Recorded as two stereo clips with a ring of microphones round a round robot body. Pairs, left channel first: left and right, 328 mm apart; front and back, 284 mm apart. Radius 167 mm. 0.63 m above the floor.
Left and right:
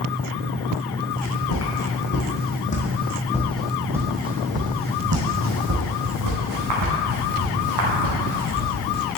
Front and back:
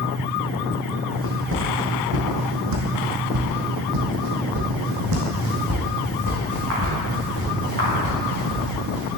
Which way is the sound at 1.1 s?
135° left.